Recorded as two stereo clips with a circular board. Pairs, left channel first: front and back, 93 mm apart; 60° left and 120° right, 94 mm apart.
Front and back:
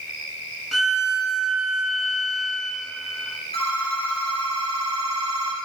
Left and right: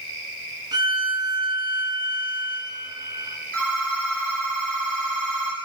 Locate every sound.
0.7 s a violin: 85° right, 0.9 m
3.5 s a phone ringing: 15° right, 2.5 m